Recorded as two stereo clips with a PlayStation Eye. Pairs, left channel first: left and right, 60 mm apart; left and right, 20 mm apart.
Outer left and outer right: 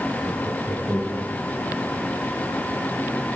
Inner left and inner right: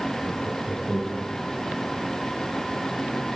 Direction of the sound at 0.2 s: Centre (ahead or behind).